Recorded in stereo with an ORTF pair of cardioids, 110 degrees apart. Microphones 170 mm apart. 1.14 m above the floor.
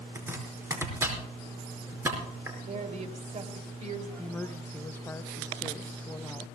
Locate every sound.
0.1 s chopping: 15° right, 5 m
2.6 s a woman speaking: 45° right, 3 m
4.2 s a woman speaking: 10° left, 0.8 m